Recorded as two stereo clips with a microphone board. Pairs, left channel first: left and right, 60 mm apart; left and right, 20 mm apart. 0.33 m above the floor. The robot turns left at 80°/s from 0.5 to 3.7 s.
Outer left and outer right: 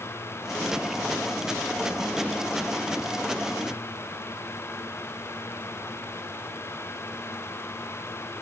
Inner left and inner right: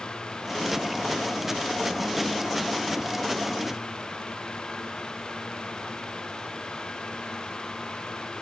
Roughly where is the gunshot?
I don't hear a gunshot.